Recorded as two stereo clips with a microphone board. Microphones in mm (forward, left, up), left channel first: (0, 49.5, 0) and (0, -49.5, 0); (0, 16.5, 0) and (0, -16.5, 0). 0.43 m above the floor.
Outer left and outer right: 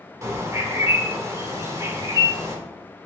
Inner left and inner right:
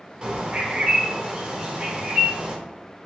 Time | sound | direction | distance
0.2 | a bird | 30° right (ahead or behind) | 0.7 m